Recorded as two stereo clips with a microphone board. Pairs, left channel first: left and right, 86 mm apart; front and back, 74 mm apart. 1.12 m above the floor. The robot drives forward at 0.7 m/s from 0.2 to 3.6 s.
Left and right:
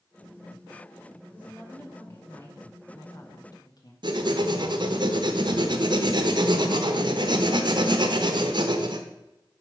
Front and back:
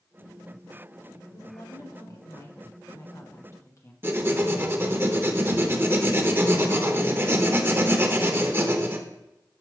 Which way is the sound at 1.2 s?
20° left.